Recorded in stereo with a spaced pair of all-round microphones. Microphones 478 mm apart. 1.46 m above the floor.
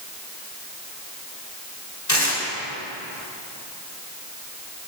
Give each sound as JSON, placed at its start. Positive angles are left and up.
{"t": 2.1, "sound": "tearing paper", "side_deg": 35, "distance_m": 3.0}